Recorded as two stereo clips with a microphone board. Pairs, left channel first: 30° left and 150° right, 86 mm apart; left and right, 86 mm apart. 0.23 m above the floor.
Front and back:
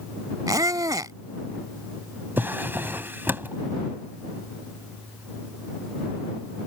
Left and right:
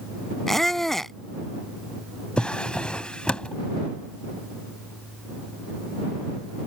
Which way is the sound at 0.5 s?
175° left.